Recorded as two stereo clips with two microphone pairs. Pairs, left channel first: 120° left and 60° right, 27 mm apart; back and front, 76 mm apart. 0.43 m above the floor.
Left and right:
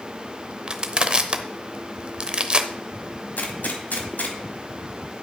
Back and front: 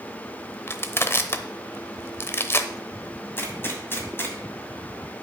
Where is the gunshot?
120° left, 1.5 m.